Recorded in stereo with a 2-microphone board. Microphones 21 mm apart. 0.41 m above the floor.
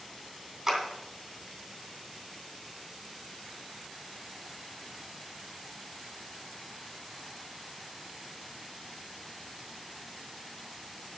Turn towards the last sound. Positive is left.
turn(degrees=-30)  # may be behind; listen again after turning